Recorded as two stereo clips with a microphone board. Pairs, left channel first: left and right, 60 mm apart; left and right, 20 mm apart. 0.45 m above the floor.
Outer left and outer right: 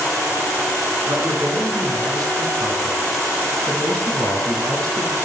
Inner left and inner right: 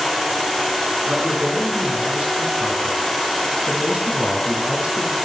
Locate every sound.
1.1 s a man speaking: 70° right (ahead or behind), 5 m